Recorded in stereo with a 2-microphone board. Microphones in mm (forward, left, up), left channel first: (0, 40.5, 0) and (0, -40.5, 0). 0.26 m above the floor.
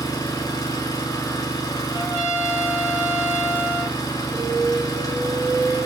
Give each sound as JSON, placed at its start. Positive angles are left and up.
{"t": 0.0, "sound": "an engine running", "side_deg": 45, "distance_m": 0.7}
{"t": 1.9, "sound": "a trumpet", "side_deg": 25, "distance_m": 1.4}
{"t": 4.3, "sound": "an alarm", "side_deg": -20, "distance_m": 1.5}